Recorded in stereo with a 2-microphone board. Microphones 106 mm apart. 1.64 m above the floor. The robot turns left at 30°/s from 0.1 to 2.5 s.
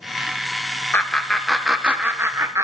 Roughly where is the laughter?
Centre.